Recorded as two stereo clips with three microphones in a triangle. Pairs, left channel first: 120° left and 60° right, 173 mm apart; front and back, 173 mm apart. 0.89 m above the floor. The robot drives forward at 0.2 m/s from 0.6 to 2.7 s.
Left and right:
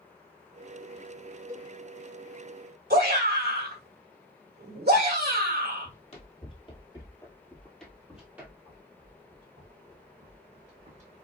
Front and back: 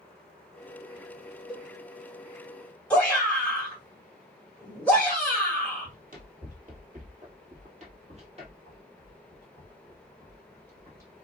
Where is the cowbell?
55° right, 1.6 m.